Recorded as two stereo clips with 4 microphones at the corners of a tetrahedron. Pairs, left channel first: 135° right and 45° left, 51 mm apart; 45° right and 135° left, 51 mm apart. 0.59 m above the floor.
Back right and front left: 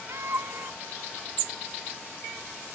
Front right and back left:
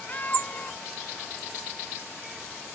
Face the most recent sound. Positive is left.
turn(degrees=15)